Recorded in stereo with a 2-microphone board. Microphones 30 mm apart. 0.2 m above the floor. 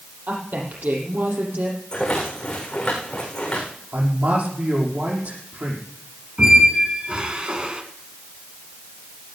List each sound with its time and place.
0.3 s a woman speaking: 75° right (ahead or behind), 6.5 m
1.9 s a rattle: 25° left (ahead or behind), 6.5 m
3.9 s a man speaking: 65° right (ahead or behind), 6.5 m
6.4 s a squeak: 35° right (ahead or behind), 1.6 m